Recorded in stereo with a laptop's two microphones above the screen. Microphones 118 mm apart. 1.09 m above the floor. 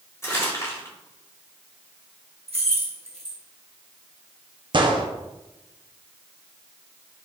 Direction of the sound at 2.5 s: 55° right (ahead or behind).